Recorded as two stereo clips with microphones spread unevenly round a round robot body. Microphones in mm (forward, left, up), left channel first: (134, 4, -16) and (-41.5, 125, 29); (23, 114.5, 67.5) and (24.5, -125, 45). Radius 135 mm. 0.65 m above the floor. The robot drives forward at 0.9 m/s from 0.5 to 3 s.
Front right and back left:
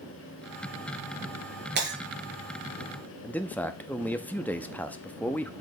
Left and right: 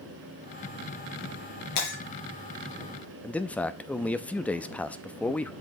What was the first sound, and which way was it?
Breaking glass, 110° left.